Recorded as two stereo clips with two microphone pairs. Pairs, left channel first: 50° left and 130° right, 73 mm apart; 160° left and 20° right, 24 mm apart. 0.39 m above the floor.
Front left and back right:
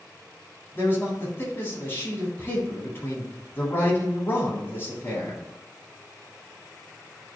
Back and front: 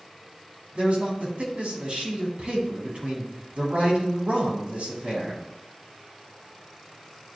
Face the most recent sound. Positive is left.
turn(degrees=-5)